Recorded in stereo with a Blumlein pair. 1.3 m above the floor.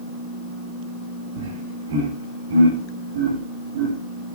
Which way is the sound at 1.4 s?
60° right.